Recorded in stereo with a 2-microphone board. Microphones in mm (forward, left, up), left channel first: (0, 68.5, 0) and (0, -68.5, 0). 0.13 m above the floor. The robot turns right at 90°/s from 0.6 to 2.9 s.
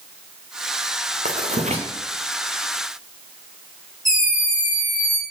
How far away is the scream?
About 6 m.